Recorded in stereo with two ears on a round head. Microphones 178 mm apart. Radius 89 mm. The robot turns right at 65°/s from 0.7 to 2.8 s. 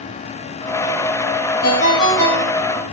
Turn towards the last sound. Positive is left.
turn(degrees=-160)